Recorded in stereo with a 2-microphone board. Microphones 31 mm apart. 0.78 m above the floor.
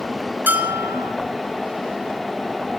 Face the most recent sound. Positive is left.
turn(degrees=-85)